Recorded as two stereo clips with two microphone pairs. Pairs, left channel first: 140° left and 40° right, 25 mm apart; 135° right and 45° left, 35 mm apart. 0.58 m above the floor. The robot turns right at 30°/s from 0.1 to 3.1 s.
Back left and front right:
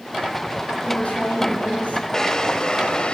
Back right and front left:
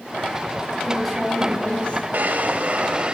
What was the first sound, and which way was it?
A woman speaking, 130° left.